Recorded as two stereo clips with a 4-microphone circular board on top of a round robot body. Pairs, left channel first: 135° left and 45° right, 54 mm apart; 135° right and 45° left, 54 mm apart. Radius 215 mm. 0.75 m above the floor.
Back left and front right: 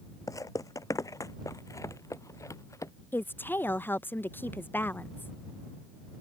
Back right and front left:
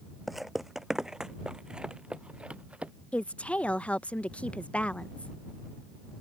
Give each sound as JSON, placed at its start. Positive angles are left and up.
{"t": 0.3, "sound": "footsteps", "azimuth_deg": 130}
{"t": 3.1, "sound": "a woman speaking", "azimuth_deg": 165}